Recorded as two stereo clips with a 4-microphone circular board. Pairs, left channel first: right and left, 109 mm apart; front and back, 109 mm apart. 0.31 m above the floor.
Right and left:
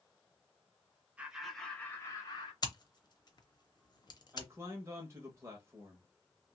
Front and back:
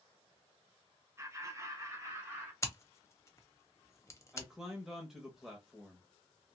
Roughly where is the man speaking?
Left.